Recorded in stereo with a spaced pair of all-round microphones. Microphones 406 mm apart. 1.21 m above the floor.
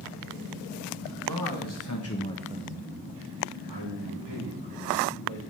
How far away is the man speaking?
About 1.7 m.